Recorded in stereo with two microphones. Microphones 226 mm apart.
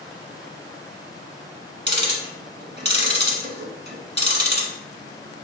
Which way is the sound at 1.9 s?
50° right (ahead or behind).